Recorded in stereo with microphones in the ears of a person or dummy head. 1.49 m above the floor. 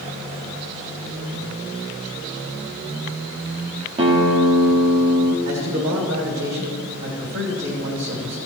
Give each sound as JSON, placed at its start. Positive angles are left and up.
{"t": 4.0, "sound": "a guitar", "side_deg": -35, "distance_m": 1.7}
{"t": 5.5, "sound": "a man speaking", "side_deg": -65, "distance_m": 3.5}